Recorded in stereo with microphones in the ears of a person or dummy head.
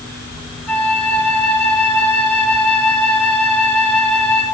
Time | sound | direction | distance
0.7 | a flute | 10° left (ahead or behind) | 9 m